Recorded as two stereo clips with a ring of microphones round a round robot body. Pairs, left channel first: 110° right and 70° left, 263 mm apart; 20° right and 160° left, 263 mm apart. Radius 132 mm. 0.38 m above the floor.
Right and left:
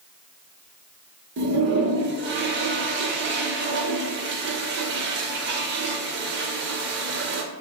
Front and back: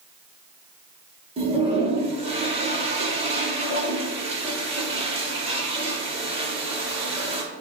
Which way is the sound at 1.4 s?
95° left.